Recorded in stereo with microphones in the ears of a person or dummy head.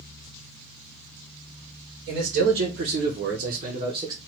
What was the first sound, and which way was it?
A man speaking, 65° right (ahead or behind).